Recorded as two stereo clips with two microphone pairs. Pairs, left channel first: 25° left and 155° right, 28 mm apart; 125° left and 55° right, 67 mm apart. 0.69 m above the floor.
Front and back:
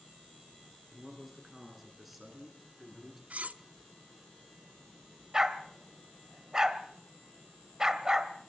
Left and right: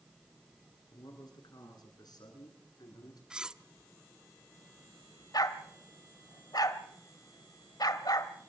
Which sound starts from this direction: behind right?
Cutlery clinking, at 3.3 s.